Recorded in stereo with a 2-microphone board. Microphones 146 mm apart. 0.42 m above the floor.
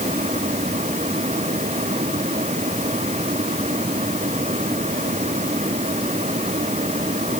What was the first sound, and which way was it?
Only background noise.